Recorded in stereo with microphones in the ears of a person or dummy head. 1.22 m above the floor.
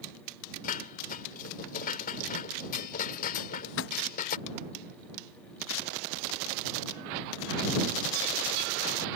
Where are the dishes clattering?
45° left (ahead or behind).